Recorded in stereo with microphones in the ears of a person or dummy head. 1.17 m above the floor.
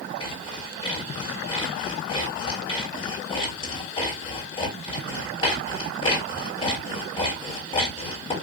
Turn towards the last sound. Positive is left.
turn(degrees=35)  # may be behind; listen again after turning